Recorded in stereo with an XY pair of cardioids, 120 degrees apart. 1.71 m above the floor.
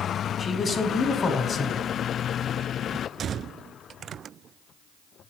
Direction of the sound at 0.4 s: 30° left.